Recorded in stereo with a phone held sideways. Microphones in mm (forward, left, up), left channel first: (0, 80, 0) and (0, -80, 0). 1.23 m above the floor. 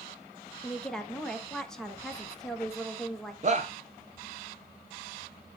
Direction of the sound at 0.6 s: 5° left (ahead or behind).